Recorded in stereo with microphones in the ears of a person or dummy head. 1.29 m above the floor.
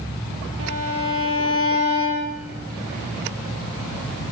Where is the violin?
75° right (ahead or behind), 6.5 m.